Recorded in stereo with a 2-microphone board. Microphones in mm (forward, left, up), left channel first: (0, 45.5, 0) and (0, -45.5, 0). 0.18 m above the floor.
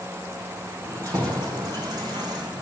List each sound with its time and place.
0.8 s keys jangling: 40° right (ahead or behind), 4 m; by 2.6 s 50° right (ahead or behind), 5.5 m